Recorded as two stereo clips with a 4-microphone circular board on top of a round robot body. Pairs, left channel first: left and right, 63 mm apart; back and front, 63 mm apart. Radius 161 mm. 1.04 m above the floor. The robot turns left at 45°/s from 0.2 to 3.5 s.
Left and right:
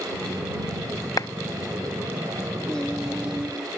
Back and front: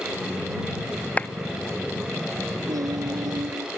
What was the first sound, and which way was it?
A clap, 115° left.